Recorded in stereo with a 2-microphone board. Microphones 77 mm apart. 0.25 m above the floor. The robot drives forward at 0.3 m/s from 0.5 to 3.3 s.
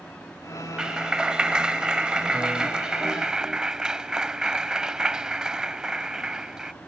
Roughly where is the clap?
Centre.